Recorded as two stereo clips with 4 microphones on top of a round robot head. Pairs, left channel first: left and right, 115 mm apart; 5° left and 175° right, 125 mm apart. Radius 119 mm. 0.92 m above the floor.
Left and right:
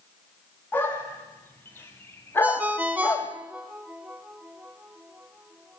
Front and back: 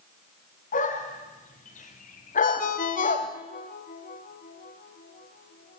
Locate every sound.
0.7 s a dog barking: 15° left, 3.5 m; by 3.3 s 20° left, 1.9 m
2.4 s a ringtone: 15° right, 1.1 m